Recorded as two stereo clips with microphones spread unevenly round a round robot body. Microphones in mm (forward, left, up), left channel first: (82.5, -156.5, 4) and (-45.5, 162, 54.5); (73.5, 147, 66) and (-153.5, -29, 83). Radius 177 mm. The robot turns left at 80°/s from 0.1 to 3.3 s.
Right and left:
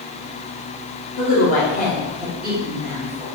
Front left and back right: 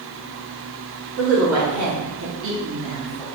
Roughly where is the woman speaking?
Right.